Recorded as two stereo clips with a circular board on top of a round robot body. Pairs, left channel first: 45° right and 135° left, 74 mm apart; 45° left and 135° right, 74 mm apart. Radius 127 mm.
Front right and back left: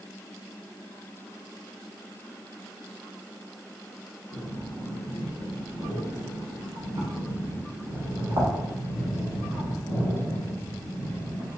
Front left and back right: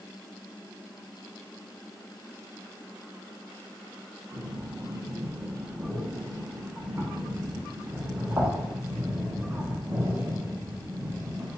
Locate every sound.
4.3 s breathing: 160° left, 1.3 m